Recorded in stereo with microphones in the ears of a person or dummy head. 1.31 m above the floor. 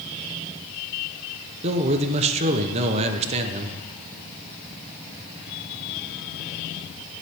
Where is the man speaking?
35° right (ahead or behind), 0.8 m.